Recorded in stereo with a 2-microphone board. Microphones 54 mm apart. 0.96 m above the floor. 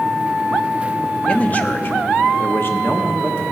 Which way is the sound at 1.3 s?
20° left (ahead or behind).